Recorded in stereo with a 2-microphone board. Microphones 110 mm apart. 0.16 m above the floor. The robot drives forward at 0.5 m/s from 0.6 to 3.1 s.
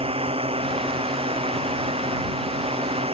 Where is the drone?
60° right (ahead or behind).